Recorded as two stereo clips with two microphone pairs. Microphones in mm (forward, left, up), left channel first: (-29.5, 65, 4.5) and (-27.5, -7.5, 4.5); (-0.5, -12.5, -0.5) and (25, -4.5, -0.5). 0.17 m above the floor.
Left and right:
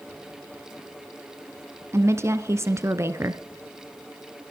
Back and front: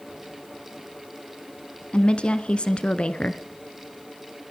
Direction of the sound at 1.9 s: 130° right.